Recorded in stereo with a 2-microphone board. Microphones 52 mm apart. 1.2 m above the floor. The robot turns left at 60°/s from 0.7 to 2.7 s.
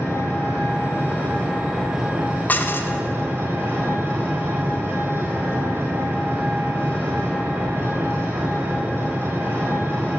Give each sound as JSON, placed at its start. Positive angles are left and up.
{"t": 0.0, "sound": "an engine running", "azimuth_deg": 65, "distance_m": 3.5}
{"t": 2.5, "sound": "dishes clattering", "side_deg": 35, "distance_m": 0.6}